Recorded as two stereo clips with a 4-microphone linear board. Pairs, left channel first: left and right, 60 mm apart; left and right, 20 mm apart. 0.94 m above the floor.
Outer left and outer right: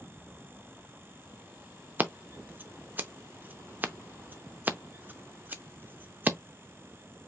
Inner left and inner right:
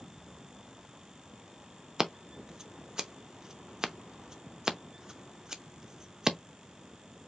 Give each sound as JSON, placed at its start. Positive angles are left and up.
{"t": 2.0, "sound": "scissors", "side_deg": -35, "distance_m": 0.6}